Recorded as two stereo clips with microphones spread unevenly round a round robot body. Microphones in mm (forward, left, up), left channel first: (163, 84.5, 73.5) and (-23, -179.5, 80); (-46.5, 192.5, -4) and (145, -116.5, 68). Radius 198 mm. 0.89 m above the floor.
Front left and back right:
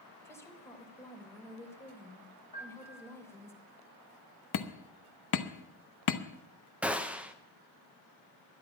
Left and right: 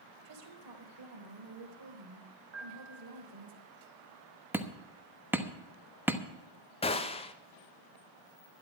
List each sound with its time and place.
0.2 s a woman speaking: 25° right, 3.5 m
2.5 s a piano: 15° right, 2.5 m
4.5 s hammering: 30° left, 1.1 m
6.8 s a gunshot: 150° left, 0.8 m